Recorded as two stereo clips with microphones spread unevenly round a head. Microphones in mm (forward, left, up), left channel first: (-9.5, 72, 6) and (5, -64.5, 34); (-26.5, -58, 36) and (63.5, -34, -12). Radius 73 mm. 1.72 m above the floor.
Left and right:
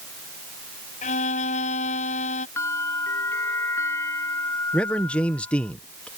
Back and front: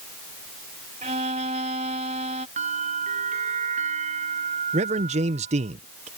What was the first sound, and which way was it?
A violin, 55° left.